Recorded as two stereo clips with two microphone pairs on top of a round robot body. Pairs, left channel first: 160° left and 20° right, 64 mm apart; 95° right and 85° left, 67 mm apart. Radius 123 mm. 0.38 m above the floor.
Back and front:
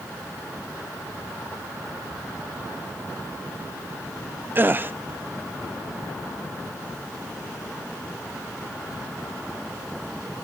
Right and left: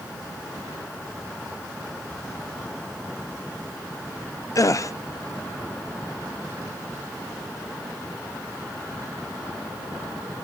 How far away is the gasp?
About 0.5 m.